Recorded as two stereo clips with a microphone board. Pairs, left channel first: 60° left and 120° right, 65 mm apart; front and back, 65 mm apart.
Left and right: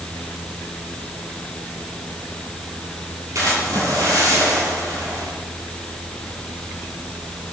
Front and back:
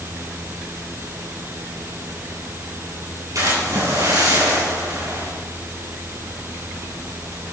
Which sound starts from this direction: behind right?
A splash, at 3.4 s.